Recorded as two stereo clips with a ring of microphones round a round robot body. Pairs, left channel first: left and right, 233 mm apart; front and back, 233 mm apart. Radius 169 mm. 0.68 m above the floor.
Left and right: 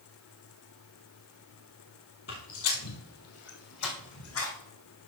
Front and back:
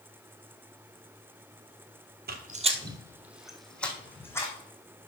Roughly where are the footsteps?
Behind left.